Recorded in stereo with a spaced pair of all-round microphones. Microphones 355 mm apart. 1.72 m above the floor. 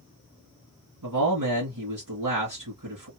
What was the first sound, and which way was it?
A man speaking, 60° right (ahead or behind).